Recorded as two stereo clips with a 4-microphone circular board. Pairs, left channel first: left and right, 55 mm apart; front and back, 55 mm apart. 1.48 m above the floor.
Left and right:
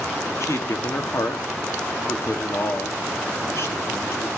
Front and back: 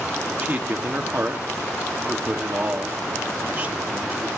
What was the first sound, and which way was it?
A man speaking, 120° left.